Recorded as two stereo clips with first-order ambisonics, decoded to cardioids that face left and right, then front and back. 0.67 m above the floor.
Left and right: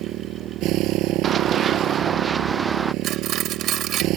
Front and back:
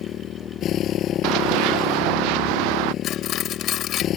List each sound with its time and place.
0.0 s a motorcycle: 50° right
1.2 s running footsteps: 155° right; by 2.9 s 170° right
3.0 s cutlery clinking: 45° right